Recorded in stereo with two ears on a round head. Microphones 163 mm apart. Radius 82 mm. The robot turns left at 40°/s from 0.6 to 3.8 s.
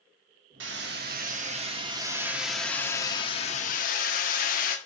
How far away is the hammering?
About 1.0 m.